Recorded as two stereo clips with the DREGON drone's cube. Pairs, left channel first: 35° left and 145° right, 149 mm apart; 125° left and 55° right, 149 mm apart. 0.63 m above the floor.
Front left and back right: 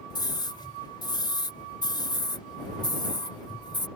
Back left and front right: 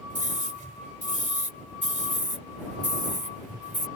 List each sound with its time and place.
0.1 s a scream: 25° right